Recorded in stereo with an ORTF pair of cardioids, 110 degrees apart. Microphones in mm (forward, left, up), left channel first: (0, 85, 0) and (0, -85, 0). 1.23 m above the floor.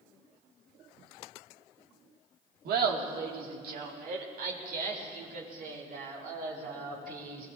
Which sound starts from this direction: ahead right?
Laughter, at 2.6 s.